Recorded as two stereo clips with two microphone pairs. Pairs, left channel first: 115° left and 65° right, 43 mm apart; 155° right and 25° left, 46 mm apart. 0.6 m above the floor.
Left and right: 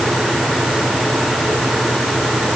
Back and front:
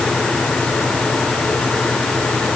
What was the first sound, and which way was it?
Only background noise.